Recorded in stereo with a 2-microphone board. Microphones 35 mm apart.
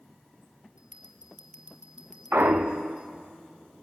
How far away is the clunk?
About 1.3 m.